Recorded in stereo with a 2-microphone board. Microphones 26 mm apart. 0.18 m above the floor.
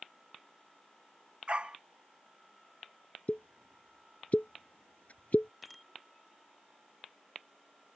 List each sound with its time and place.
1.5 s a dog barking: 40° right (ahead or behind)
3.3 s a pop: 70° left (ahead or behind)
5.6 s a bicycle bell: centre (ahead or behind)